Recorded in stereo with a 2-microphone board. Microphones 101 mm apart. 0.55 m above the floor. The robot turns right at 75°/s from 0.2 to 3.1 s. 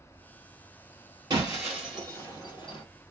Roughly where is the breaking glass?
Right.